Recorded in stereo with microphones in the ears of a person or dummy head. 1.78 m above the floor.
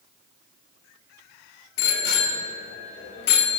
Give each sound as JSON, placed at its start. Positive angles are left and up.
{"t": 1.8, "sound": "a bicycle bell", "side_deg": 75, "distance_m": 3.5}